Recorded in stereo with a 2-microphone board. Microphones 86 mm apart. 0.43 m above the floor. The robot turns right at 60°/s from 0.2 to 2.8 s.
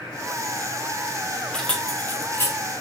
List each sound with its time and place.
1.5 s keys jangling: 10° left (ahead or behind), 0.8 m; by 2.6 s 30° left (ahead or behind), 0.8 m